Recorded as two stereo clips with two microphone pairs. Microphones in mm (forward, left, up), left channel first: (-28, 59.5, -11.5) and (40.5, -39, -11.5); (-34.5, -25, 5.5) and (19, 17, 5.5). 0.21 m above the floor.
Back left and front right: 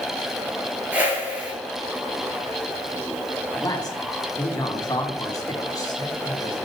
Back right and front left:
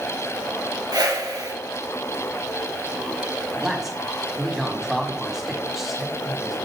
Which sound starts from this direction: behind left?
A man speaking, at 3.5 s.